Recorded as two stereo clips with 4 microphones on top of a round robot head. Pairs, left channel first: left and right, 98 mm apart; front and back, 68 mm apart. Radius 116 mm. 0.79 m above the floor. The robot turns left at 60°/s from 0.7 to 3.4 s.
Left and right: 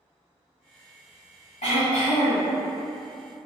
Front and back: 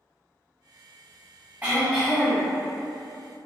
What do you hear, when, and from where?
1.6 s throat clearing: 120° left, 1.2 m; by 2.5 s 65° left, 1.2 m